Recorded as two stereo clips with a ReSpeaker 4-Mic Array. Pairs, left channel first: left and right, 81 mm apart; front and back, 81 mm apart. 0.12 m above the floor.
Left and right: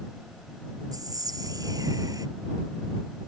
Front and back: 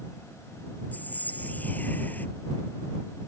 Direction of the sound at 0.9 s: 65° right.